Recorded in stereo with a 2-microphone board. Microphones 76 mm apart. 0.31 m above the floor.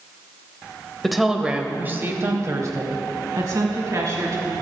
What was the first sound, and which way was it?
A woman speaking, centre (ahead or behind).